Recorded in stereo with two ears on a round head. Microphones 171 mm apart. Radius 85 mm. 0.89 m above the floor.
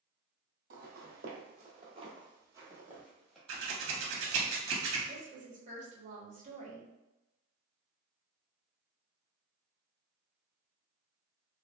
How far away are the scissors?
About 0.9 m.